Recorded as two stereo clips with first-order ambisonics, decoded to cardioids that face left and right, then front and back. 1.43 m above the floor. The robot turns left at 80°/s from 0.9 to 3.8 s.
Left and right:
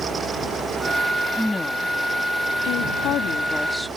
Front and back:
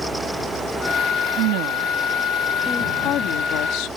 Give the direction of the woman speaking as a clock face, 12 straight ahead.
6 o'clock.